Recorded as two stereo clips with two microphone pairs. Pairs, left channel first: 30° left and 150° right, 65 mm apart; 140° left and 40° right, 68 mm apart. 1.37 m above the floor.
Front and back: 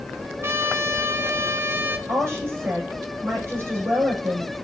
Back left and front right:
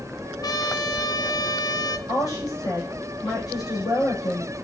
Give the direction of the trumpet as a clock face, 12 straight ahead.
7 o'clock.